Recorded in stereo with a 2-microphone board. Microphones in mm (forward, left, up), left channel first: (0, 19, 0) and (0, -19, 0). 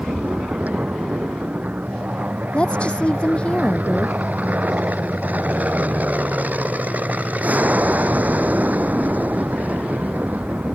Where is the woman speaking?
30° left (ahead or behind).